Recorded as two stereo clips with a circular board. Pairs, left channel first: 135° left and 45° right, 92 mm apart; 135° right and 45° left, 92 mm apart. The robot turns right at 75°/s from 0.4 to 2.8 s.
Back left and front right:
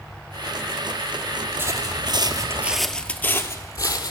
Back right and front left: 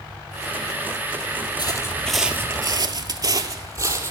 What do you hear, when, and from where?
1.6 s footsteps: 105° right, 0.9 m; by 4.1 s 100° left, 1.1 m